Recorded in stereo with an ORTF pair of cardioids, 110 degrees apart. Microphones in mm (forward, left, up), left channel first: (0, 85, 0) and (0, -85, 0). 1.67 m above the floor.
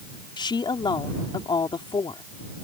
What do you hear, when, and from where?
0.4 s a woman speaking: 25° left